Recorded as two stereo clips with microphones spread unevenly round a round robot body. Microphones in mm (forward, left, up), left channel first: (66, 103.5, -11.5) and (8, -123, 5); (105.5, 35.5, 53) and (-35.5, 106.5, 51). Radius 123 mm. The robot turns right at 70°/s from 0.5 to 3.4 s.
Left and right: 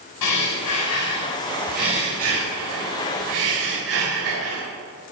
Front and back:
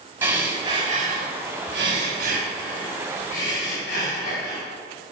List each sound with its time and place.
0.2 s breathing: 80° left, 5.5 m; by 4.6 s 80° right, 5.5 m